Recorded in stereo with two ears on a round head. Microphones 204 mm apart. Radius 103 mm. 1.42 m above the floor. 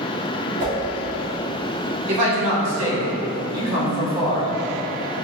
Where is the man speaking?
80° right, 1.6 m.